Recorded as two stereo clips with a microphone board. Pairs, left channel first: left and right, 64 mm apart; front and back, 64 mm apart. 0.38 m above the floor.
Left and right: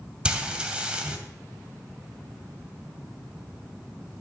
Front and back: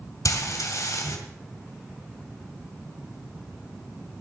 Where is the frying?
15° right, 2 m.